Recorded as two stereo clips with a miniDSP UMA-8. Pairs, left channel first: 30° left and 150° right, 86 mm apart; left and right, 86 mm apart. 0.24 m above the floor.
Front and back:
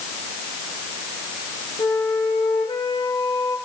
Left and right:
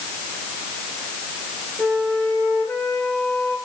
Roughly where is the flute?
Ahead.